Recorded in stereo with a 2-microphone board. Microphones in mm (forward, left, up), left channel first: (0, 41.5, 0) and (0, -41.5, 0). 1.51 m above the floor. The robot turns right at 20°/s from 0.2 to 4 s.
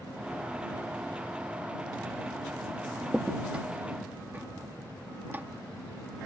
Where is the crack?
5° right (ahead or behind); by 5.5 s 25° right (ahead or behind).